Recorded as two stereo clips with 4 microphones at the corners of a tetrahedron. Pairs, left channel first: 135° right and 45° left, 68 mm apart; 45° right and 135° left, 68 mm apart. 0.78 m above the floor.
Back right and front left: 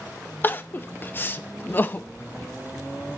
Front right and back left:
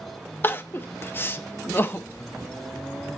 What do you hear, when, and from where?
0.4 s crying: 85° right, 0.8 m